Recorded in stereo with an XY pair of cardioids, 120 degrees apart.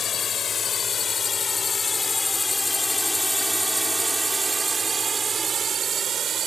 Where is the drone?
40° left; by 6.5 s 50° right.